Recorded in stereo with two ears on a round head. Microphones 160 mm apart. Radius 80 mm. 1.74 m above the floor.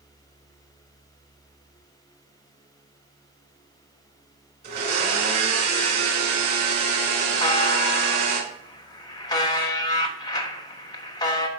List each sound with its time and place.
4.6 s a blender: 60° right (ahead or behind), 3 m
7.4 s a buzzer: 25° left (ahead or behind), 1.2 m